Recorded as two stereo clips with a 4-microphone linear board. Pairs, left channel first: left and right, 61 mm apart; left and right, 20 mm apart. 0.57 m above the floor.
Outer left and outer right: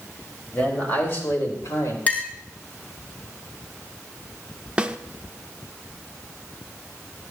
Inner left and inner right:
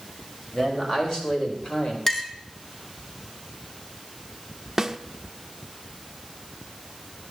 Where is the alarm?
No alarm in this recording.